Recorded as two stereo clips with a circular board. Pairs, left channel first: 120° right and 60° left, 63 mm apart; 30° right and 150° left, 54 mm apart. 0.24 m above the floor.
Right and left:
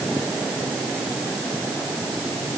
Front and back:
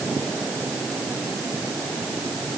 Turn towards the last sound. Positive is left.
No sound to turn to.